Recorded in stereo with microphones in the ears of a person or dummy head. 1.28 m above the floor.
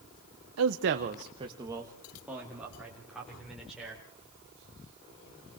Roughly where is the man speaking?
Right.